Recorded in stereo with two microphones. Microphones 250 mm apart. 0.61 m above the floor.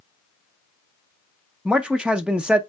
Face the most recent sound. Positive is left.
turn(degrees=-5)  # may be behind; listen again after turning